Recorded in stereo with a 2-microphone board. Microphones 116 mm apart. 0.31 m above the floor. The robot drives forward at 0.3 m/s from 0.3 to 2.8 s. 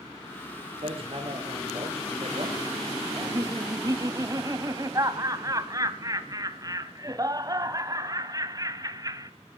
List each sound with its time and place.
0.8 s hammering: 50° right (ahead or behind), 5.5 m; by 2.6 s 55° right (ahead or behind), 5.5 m
3.2 s laughter: 30° right (ahead or behind), 1.6 m